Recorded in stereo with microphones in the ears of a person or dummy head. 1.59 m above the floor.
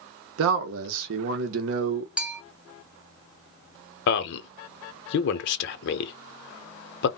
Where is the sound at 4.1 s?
65° left (ahead or behind), 0.7 m.